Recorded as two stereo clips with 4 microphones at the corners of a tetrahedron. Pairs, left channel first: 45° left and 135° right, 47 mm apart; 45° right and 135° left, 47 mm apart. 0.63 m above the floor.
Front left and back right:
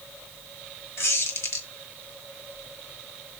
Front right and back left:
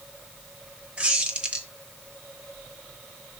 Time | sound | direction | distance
1.0 | a squeak | 70° left | 1.6 m